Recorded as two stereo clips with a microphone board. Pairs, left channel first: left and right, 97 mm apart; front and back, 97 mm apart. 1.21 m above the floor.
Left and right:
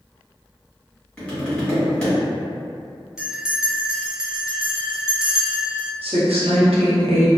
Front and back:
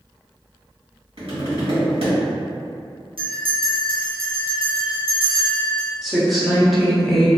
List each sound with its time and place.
1.2 s tapping: 170° left, 1.4 m
3.2 s a bell: 170° right, 0.6 m
6.0 s a woman speaking: 90° right, 0.8 m